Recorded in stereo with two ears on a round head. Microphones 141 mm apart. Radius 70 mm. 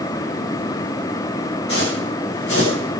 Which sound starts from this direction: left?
Footsteps, at 1.7 s.